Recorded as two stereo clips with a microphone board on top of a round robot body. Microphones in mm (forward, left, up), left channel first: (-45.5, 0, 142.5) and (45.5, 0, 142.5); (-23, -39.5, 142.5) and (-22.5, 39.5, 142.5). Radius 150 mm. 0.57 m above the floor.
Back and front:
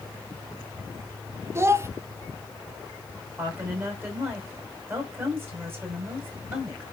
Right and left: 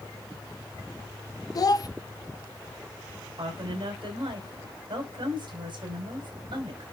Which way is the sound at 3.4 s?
65° left.